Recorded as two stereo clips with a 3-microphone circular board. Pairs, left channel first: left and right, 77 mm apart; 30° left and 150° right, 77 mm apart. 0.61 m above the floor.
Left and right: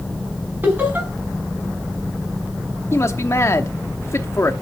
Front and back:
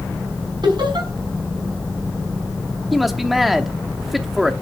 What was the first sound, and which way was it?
Laughter, 155° right.